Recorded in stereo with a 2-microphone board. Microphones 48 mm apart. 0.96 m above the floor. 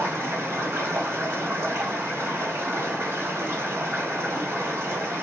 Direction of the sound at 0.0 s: 85° right.